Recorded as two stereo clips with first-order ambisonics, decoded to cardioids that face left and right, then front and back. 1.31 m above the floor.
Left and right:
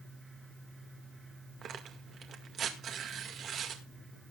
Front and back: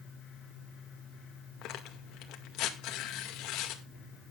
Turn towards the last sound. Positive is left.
turn(degrees=-35)